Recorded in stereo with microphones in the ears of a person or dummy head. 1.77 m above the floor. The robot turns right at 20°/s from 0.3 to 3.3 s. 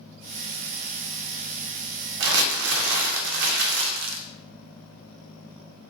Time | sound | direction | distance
2.2 | crumpling | 65° right (ahead or behind) | 0.5 m